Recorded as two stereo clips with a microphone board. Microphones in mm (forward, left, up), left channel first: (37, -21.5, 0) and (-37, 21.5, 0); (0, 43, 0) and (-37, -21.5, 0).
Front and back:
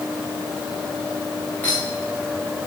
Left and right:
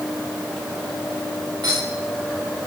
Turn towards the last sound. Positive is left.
turn(degrees=-100)